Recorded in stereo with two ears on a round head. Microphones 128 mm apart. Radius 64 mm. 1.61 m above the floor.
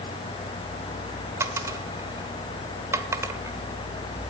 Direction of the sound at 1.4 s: 20° right (ahead or behind).